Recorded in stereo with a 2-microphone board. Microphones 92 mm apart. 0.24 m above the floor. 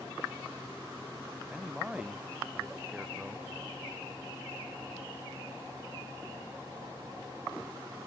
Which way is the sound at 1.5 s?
10° right (ahead or behind).